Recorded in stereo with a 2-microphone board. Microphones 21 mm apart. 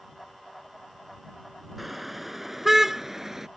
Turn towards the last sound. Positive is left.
turn(degrees=-15)  # may be behind; listen again after turning